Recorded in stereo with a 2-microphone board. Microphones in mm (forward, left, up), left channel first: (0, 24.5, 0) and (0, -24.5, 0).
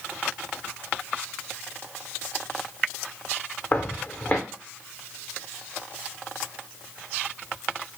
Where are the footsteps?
35° left (ahead or behind), 0.6 m.